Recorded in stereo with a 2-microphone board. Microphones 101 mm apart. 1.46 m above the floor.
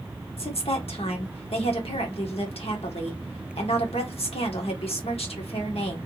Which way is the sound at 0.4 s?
75° left (ahead or behind).